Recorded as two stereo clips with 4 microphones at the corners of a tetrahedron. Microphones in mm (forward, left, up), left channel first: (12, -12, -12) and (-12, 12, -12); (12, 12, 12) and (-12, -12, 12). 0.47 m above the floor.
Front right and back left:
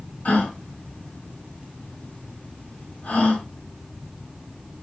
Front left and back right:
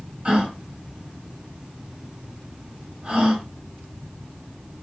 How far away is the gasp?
About 1.1 m.